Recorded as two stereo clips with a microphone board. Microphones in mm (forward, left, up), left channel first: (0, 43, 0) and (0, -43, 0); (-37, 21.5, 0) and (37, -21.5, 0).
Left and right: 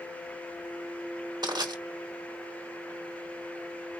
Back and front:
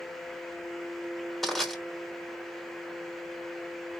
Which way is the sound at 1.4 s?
120° right.